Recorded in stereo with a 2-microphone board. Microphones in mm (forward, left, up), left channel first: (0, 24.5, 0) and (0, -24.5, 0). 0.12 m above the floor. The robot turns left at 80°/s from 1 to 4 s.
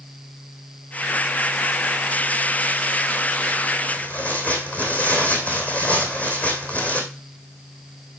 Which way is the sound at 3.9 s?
25° left (ahead or behind).